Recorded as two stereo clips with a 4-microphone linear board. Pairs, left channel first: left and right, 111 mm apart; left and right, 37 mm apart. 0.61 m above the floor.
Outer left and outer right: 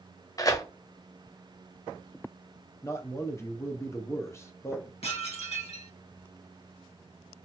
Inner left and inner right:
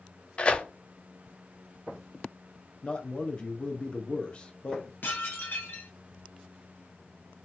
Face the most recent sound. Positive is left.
turn(degrees=70)  # may be behind; listen again after turning